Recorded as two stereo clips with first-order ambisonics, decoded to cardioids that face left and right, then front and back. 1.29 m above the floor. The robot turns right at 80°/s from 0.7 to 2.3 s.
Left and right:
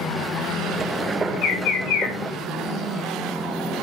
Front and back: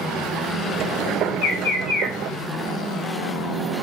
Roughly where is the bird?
Ahead left.